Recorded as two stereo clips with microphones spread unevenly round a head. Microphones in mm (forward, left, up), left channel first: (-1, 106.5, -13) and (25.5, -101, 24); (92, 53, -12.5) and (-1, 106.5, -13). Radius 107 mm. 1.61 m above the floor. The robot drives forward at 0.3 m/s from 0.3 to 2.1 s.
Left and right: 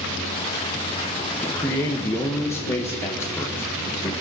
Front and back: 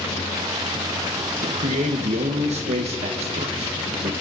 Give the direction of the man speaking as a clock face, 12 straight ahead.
6 o'clock.